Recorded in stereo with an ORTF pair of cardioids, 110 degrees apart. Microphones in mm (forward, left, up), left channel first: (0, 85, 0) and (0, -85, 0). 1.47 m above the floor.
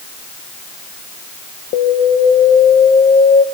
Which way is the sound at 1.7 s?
65° left.